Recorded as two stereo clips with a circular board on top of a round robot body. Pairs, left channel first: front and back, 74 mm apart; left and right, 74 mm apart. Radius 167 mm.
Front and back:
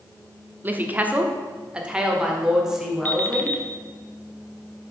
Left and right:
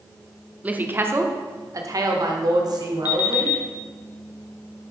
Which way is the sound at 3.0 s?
65° left.